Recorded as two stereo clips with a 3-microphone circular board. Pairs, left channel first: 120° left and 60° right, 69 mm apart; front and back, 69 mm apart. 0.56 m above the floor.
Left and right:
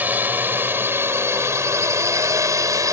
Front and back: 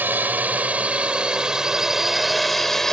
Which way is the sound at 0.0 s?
120° right.